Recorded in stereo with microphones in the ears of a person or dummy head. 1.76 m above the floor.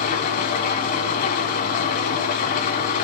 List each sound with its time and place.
0.0 s an engine running: 50° left (ahead or behind), 1.8 m